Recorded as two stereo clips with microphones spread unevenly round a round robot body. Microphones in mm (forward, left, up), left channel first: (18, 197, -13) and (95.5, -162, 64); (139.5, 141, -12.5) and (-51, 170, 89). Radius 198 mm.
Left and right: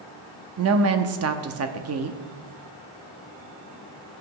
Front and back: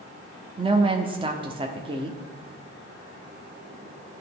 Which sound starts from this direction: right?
A woman speaking, at 0.6 s.